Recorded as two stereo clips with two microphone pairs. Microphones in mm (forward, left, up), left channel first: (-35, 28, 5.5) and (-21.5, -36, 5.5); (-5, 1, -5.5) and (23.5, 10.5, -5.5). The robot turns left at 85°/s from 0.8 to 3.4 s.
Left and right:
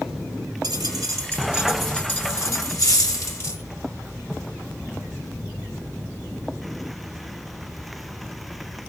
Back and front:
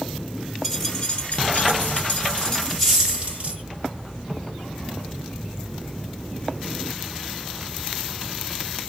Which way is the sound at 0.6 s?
80° right.